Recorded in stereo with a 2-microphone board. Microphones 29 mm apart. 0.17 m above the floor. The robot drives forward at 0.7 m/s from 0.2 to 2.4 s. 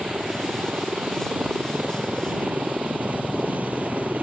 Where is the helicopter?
60° right (ahead or behind); by 4.2 s 65° right (ahead or behind).